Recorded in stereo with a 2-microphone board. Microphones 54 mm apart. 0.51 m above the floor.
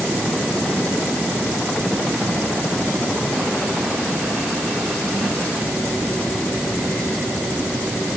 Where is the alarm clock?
I don't hear an alarm clock.